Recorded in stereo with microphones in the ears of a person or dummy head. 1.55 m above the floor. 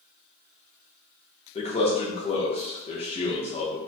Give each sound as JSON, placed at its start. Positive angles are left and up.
{"t": 1.6, "sound": "a man speaking", "side_deg": 30, "distance_m": 0.5}